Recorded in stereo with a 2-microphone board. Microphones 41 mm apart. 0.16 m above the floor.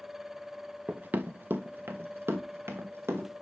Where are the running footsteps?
35° right (ahead or behind), 0.5 m; by 3.3 s 80° right, 2.0 m.